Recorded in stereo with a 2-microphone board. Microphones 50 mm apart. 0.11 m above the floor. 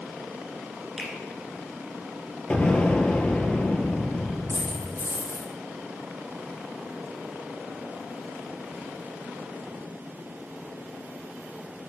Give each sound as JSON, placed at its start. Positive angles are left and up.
{"t": 1.0, "sound": "a finger snap", "side_deg": -10, "distance_m": 1.1}
{"t": 2.5, "sound": "an explosion", "side_deg": 20, "distance_m": 0.5}
{"t": 4.5, "sound": "a dropped coin", "side_deg": -75, "distance_m": 3.0}